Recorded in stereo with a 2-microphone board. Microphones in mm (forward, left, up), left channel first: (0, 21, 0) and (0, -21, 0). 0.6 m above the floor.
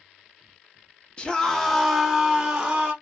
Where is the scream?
25° left (ahead or behind), 0.7 m; by 2.9 s 20° right (ahead or behind), 1.1 m.